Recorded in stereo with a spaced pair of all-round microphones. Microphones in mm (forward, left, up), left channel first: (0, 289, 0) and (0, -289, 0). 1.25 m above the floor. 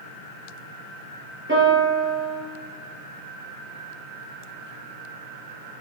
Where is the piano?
20° right (ahead or behind), 7 m.